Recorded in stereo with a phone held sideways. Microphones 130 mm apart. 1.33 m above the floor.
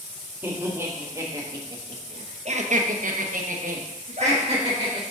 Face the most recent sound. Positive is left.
turn(degrees=-45)  # may be behind; listen again after turning